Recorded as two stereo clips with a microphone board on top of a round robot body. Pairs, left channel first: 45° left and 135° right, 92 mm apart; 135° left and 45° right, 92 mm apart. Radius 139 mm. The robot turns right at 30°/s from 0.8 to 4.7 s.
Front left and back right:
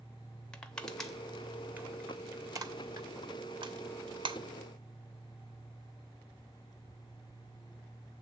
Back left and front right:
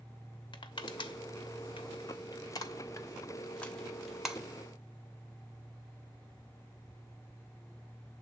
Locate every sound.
0.5 s crushing: 125° left, 1.4 m; by 4.4 s 125° right, 1.4 m